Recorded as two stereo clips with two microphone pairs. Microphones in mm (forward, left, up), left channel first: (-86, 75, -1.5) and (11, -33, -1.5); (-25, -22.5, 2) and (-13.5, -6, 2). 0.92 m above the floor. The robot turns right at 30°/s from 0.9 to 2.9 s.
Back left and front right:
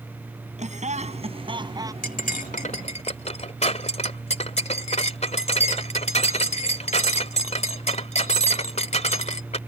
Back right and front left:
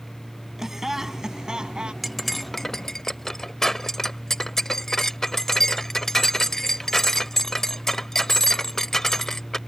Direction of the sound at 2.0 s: 145° left.